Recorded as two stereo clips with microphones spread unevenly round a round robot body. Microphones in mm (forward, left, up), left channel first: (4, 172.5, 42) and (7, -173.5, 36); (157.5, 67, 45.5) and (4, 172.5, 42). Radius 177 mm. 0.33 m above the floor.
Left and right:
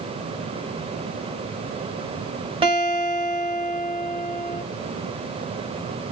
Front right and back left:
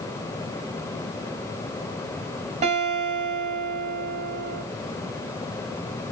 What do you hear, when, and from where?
2.6 s a guitar: 160° right, 1.2 m